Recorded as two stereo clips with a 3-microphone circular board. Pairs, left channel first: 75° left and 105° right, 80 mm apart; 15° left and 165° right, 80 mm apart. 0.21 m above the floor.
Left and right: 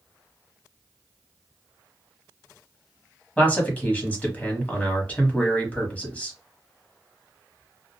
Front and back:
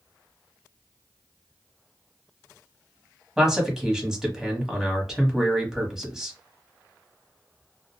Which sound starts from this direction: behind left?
A man speaking, at 3.4 s.